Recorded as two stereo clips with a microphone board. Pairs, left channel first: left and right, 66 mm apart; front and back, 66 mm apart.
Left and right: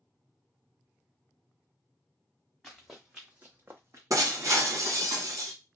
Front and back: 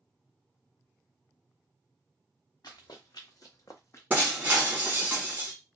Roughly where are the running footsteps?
Ahead.